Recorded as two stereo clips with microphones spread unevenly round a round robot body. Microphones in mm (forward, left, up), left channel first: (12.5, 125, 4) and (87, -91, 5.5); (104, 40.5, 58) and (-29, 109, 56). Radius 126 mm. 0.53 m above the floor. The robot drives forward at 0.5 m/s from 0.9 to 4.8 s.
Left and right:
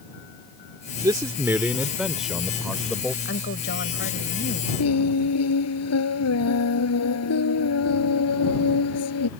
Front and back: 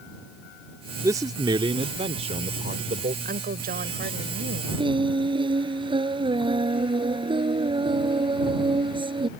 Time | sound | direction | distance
1.0 | a man speaking | 140° right | ?
3.2 | a woman speaking | 155° left | ?
4.8 | singing | 95° left | ?